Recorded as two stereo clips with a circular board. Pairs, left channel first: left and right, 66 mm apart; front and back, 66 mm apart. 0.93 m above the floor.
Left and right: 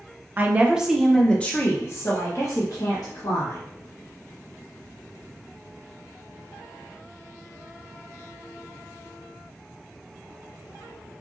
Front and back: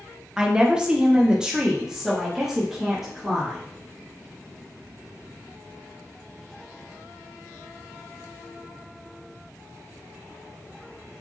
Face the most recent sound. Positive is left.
turn(degrees=95)